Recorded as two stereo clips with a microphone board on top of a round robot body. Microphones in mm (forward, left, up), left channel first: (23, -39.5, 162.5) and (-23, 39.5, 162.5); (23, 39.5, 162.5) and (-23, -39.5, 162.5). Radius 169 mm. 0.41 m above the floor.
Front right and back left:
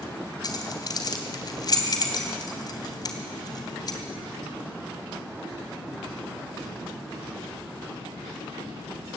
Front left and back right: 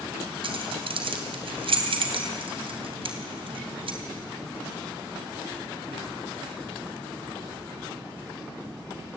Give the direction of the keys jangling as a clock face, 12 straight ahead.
3 o'clock.